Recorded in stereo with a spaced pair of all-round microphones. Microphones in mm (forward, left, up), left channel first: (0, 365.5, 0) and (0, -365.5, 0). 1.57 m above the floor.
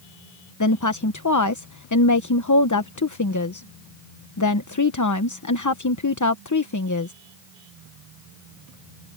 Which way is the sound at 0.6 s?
25° left (ahead or behind).